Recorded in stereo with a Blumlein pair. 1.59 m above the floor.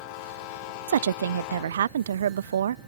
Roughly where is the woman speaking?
Ahead right.